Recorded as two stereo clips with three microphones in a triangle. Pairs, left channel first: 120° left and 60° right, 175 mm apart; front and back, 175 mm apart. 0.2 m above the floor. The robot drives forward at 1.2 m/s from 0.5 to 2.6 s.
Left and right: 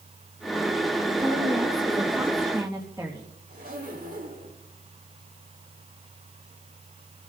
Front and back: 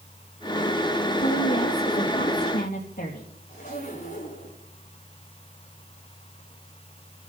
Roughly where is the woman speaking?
Ahead.